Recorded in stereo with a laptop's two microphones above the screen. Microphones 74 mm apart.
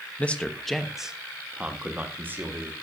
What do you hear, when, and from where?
0.2 s a man speaking: 20° left (ahead or behind), 0.9 m; by 2.7 s 35° right (ahead or behind), 1.8 m